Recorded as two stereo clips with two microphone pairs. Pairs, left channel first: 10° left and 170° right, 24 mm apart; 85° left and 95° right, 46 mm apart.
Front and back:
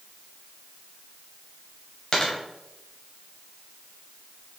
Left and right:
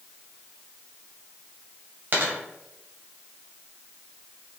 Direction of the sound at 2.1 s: 50° right.